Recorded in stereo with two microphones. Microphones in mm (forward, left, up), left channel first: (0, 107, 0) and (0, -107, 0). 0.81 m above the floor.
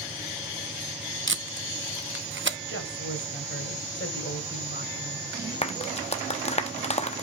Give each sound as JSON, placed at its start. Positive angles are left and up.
{"t": 1.3, "sound": "tape being pulled", "side_deg": -60, "distance_m": 0.8}
{"t": 2.7, "sound": "a woman speaking", "side_deg": 65, "distance_m": 3.5}
{"t": 5.6, "sound": "a clap", "side_deg": 30, "distance_m": 0.9}